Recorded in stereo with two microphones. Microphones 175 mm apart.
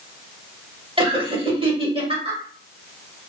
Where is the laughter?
30° right (ahead or behind), 1.1 m.